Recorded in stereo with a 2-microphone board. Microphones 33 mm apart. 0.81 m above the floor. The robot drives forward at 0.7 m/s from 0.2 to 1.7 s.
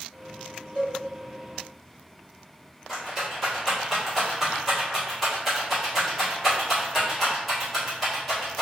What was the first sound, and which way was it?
A cowbell, 50° right (ahead or behind).